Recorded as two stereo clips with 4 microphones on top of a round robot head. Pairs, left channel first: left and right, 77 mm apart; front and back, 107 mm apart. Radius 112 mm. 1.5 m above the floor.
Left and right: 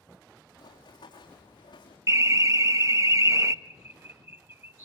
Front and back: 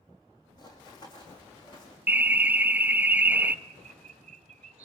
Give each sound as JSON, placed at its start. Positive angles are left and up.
{"t": 0.6, "sound": "running footsteps", "azimuth_deg": 45, "distance_m": 4.0}
{"t": 2.1, "sound": "an alarm", "azimuth_deg": -115, "distance_m": 0.7}
{"t": 3.6, "sound": "a bird", "azimuth_deg": -140, "distance_m": 1.5}